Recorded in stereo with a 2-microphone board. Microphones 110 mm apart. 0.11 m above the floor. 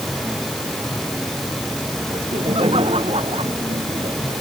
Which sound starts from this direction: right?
Laughter, at 2.1 s.